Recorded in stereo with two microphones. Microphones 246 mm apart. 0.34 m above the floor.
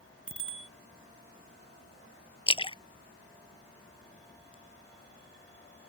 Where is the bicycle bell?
65° left (ahead or behind).